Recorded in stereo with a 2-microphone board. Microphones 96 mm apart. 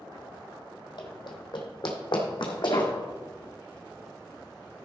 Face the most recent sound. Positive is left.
turn(degrees=60)  # may be behind; listen again after turning